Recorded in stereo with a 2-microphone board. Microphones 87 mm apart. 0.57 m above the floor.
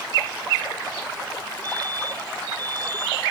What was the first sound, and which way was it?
A fire alarm, 50° right (ahead or behind).